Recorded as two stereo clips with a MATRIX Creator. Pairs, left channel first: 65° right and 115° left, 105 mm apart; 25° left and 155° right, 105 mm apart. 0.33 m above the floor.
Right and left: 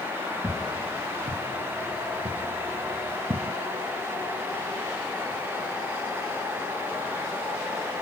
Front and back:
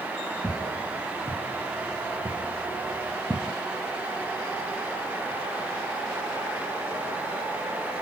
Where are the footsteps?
130° left, 4 m; by 3.5 s 120° left, 1.4 m.